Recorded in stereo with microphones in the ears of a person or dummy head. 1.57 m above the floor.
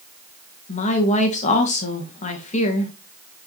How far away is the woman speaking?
About 2.0 m.